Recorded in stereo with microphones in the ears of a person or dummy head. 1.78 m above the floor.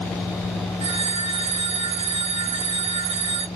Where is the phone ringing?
30° right (ahead or behind), 4 m.